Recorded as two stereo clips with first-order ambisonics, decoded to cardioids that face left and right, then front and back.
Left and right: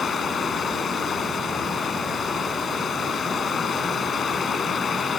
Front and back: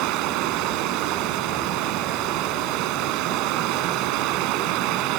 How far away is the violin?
No violin in this recording.